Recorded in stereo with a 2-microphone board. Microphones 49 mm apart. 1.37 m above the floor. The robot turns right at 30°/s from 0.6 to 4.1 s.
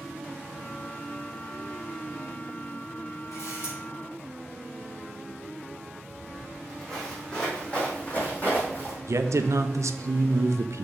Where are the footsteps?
Centre (ahead or behind), 3 m; by 9.0 s 45° left (ahead or behind), 3 m.